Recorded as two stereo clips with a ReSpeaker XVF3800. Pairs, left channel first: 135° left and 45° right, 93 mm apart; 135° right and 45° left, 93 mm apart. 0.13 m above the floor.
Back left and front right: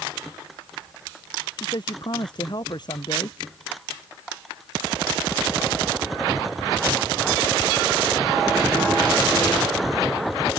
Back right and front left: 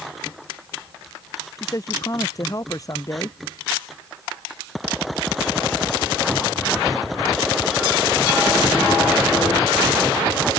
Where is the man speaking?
175° left.